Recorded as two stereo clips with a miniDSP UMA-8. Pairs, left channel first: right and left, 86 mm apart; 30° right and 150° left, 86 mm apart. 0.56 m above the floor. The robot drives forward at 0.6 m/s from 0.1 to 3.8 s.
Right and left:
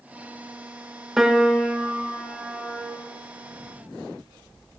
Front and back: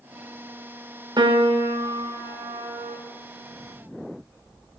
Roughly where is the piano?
Behind.